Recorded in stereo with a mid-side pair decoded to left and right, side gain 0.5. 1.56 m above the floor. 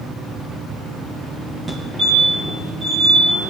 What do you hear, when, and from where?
1.7 s a fire alarm: 20° right, 2.5 m